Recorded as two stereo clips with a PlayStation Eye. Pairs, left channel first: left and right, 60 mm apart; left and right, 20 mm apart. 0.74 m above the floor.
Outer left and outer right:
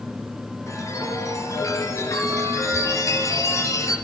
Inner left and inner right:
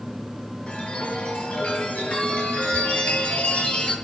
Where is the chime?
60° left (ahead or behind), 7 m.